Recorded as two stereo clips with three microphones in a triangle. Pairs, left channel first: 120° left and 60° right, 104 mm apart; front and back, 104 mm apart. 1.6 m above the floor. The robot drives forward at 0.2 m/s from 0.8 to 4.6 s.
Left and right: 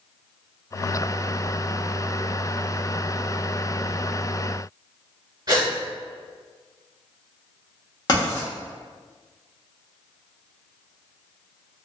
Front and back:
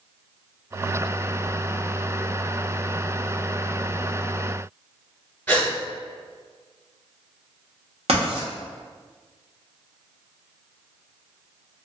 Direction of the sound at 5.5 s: 60° right.